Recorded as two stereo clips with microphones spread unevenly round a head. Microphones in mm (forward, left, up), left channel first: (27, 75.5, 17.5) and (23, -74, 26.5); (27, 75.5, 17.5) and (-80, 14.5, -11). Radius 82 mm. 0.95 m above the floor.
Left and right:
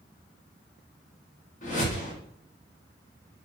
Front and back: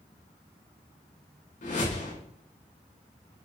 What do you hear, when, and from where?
1.6 s a whoosh: 50° left, 3.5 m